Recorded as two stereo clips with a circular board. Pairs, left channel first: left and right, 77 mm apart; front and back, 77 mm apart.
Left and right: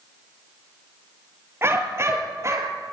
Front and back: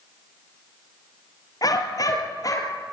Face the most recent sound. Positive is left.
turn(degrees=-40)